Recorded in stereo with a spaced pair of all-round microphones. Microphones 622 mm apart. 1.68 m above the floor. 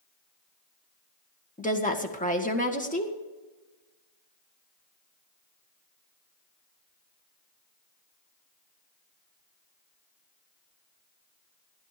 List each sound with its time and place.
1.6 s a woman speaking: 10° left (ahead or behind), 1.8 m